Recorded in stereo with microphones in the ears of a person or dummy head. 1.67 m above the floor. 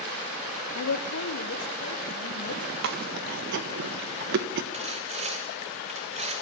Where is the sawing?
40° right (ahead or behind), 1.4 m.